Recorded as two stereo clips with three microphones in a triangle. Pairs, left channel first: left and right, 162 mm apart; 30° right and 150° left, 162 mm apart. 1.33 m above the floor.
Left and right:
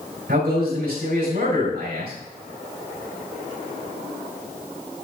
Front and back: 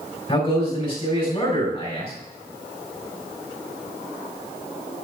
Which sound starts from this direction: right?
A man speaking, at 0.3 s.